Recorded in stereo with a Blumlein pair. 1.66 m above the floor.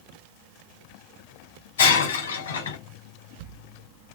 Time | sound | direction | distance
1.8 | breaking glass | 65° left | 3.5 m